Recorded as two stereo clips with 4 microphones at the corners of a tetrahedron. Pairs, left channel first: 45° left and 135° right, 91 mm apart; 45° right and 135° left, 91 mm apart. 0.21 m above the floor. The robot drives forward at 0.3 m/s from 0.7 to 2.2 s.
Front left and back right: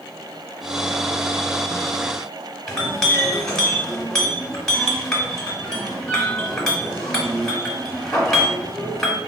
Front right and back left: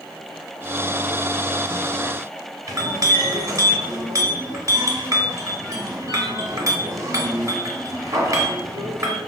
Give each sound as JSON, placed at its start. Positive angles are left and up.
{"t": 2.7, "sound": "a clink", "azimuth_deg": 125, "distance_m": 0.7}